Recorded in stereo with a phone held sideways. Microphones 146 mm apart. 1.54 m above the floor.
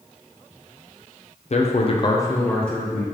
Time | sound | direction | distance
1.5 | a man speaking | 50° left (ahead or behind) | 0.5 m